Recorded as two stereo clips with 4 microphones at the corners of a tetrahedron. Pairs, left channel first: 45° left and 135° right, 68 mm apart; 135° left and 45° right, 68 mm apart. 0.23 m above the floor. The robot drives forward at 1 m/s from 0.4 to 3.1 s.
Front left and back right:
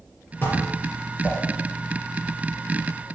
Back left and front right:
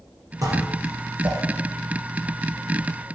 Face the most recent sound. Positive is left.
turn(degrees=-45)